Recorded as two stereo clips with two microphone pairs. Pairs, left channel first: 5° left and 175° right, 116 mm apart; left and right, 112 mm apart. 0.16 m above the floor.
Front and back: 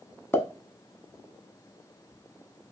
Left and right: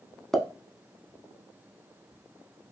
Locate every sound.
0.3 s a pop: straight ahead, 0.5 m